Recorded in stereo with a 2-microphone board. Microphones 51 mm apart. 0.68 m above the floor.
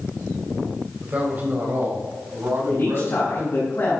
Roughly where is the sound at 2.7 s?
Left.